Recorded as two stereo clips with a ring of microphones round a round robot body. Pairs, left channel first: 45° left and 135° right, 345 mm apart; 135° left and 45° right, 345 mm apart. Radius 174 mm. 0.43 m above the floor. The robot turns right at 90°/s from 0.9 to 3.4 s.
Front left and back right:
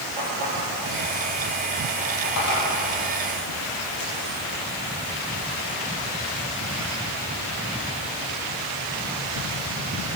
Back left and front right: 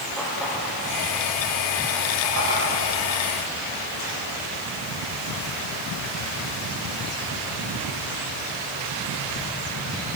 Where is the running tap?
135° right, 9 m; by 4.2 s 90° left, 9 m.